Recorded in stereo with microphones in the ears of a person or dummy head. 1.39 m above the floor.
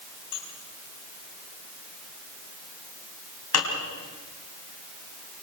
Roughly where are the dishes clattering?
Left.